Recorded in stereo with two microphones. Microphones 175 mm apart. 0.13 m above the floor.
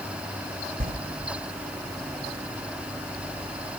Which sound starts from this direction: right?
A sliding door, at 0.8 s.